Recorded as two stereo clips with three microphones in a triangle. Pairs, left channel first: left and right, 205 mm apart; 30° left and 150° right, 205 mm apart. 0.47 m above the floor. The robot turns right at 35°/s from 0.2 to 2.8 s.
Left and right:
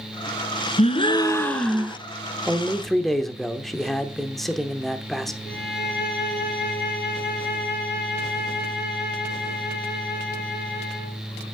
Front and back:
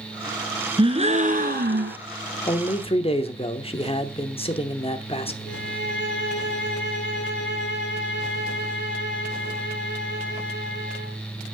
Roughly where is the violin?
Ahead left.